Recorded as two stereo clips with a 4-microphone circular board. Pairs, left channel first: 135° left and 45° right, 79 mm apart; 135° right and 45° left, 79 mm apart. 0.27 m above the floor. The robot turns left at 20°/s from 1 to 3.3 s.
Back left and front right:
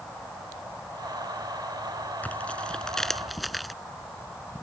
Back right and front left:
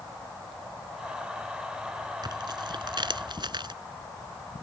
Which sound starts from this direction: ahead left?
Tearing paper, at 2.2 s.